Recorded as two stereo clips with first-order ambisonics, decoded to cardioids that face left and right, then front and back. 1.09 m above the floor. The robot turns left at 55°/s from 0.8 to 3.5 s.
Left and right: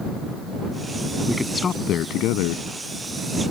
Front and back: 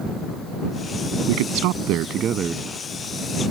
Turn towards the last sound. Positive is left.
turn(degrees=55)